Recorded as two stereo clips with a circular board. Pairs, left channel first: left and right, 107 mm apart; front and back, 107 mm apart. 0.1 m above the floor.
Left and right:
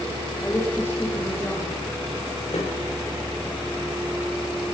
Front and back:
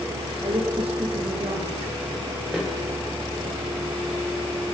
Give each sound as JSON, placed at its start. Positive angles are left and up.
{"t": 0.4, "sound": "a woman speaking", "azimuth_deg": 155, "distance_m": 5.0}
{"t": 2.5, "sound": "a snare drum", "azimuth_deg": 95, "distance_m": 6.5}